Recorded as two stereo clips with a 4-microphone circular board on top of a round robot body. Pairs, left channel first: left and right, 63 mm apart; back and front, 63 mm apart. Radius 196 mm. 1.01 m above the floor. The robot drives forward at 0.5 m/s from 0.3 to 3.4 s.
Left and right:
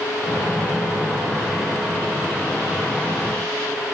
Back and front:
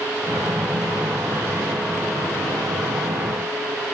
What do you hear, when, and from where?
Only background noise.